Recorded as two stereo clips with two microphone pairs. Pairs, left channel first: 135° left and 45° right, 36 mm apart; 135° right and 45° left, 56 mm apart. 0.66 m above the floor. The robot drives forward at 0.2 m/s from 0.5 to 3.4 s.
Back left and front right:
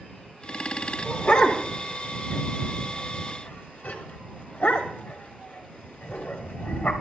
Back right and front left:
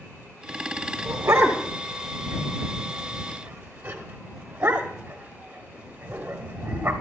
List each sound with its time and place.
1.1 s a dog barking: 85° left, 1.2 m; by 6.9 s 105° left, 1.3 m